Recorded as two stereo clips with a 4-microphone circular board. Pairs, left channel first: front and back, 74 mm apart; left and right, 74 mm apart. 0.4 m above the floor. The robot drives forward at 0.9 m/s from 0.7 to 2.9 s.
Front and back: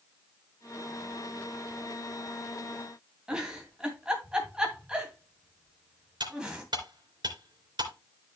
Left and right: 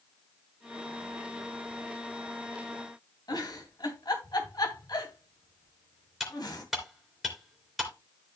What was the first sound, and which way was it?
A giggle, 105° left.